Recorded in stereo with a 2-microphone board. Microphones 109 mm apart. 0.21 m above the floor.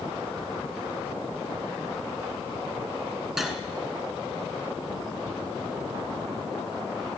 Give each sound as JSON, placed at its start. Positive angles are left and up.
{"t": 3.4, "sound": "cutlery clinking", "side_deg": -5, "distance_m": 1.4}